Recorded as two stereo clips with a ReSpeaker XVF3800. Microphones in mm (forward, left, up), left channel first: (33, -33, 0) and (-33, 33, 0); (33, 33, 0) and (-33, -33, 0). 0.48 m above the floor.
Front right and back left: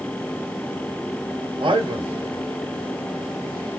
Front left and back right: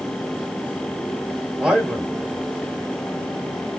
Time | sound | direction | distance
1.6 | a man speaking | 145° left | 1.6 m